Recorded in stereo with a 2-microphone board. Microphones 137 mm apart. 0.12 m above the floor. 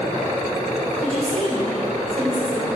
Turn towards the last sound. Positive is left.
turn(degrees=-50)  # may be behind; listen again after turning